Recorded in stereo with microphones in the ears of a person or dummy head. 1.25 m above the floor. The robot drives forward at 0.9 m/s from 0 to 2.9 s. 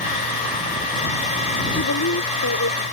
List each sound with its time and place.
1.7 s a woman speaking: 90° left; by 2.8 s 70° left (ahead or behind)